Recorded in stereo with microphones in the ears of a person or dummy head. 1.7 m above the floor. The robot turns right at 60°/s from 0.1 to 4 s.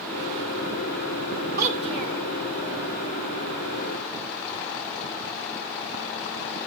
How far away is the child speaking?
About 2 m.